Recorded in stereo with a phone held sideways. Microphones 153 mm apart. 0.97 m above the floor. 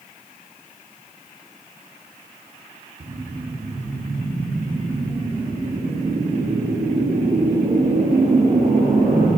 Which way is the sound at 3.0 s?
80° right.